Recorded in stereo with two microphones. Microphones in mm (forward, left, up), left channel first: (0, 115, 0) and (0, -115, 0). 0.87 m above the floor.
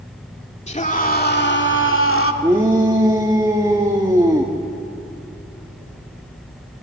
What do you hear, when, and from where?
0.7 s a scream: 30° left (ahead or behind), 2.5 m; by 2.3 s 70° left (ahead or behind), 2.5 m
2.4 s a shout: 15° right (ahead or behind), 1.6 m